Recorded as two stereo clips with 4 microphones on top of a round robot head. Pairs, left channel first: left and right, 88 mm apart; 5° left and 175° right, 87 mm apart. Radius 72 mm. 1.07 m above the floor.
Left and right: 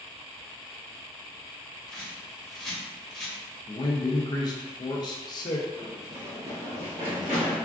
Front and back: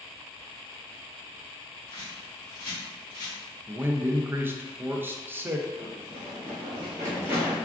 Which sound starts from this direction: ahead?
A bird, at 1.9 s.